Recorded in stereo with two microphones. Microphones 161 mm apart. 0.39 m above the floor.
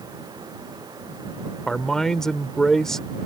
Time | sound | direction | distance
1.7 | a man speaking | 5° left (ahead or behind) | ?